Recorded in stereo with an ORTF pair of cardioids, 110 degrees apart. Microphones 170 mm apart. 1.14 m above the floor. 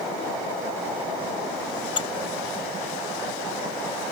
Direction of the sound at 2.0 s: 30° left.